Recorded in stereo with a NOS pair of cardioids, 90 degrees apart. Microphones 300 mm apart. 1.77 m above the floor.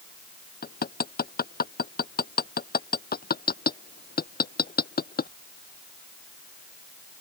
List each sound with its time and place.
0.6 s hammering: 35° left